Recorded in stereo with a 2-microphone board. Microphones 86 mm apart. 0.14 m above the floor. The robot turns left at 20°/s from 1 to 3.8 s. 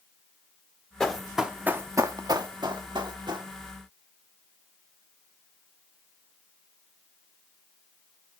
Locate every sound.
1.0 s running footsteps: 5° left (ahead or behind), 1.2 m; by 3.5 s 55° right (ahead or behind), 2.5 m